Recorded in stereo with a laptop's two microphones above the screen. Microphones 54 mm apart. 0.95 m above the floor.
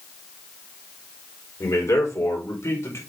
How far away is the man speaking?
About 4.5 m.